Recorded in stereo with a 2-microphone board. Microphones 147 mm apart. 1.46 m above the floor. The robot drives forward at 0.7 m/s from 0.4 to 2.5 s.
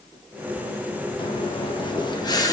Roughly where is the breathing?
Left.